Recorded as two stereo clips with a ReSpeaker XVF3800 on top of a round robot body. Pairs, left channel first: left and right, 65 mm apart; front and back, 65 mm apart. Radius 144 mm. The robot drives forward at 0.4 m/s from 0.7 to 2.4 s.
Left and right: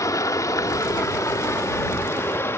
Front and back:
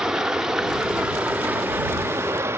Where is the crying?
I don't hear crying.